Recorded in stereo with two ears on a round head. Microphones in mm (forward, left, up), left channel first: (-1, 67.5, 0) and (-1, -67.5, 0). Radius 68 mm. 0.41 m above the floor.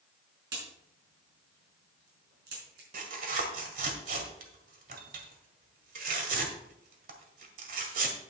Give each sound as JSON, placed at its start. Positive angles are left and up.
{"t": 0.5, "sound": "a crack", "side_deg": -75, "distance_m": 5.0}
{"t": 2.9, "sound": "tearing paper", "side_deg": -60, "distance_m": 1.7}